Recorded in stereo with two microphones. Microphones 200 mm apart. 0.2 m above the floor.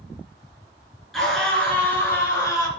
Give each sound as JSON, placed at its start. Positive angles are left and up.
{"t": 1.1, "sound": "a scream", "side_deg": 0, "distance_m": 3.0}